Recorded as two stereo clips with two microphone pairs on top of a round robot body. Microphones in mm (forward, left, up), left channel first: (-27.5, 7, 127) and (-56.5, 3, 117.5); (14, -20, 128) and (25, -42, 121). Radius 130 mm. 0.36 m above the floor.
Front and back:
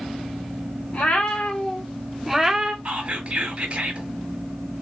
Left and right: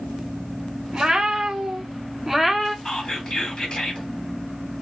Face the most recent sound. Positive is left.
turn(degrees=180)